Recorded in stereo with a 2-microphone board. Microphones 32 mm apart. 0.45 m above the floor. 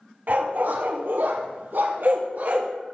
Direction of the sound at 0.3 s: 65° right (ahead or behind).